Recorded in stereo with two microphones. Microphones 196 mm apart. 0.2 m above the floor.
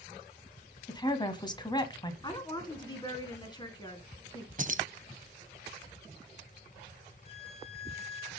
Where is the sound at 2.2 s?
20° left (ahead or behind), 2 m.